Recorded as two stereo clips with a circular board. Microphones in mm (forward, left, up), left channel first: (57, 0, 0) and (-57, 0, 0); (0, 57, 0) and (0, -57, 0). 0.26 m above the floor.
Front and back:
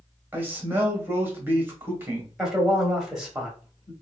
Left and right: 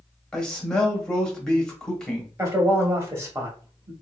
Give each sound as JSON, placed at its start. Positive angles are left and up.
{"t": 0.3, "sound": "a man speaking", "azimuth_deg": 155, "distance_m": 0.9}
{"t": 2.4, "sound": "a man speaking", "azimuth_deg": -105, "distance_m": 1.0}